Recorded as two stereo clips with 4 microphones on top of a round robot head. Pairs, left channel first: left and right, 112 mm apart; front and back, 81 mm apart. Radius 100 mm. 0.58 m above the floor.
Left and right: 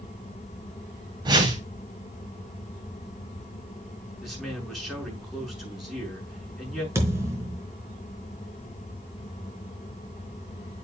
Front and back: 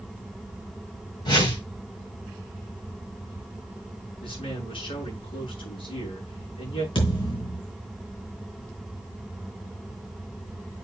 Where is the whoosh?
40° right, 3.5 m.